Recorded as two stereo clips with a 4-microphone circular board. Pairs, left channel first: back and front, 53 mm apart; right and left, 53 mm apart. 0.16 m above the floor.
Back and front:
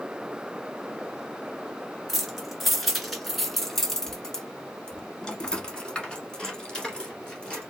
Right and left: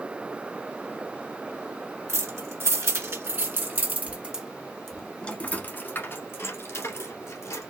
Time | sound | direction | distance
2.1 | keys jangling | 85° left | 1.8 m